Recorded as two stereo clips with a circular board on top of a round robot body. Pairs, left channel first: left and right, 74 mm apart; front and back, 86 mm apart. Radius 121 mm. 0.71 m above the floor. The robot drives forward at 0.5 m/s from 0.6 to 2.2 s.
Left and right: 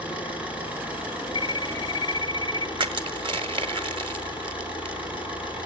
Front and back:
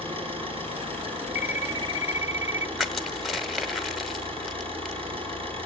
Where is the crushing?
90° right, 0.7 m.